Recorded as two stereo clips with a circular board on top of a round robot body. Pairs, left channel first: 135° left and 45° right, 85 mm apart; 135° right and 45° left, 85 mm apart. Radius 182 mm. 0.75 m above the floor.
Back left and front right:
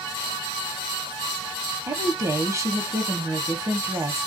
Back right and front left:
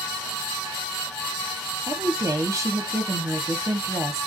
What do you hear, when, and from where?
1.9 s a woman speaking: straight ahead, 1.0 m